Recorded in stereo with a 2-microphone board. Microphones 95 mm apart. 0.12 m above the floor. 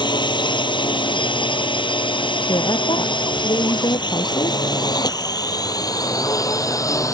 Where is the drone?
55° left (ahead or behind); by 7.2 s 35° left (ahead or behind).